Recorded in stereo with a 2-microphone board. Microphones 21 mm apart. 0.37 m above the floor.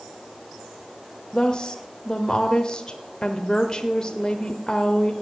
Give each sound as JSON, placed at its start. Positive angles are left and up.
{"t": 1.3, "sound": "a woman speaking", "side_deg": 30, "distance_m": 0.9}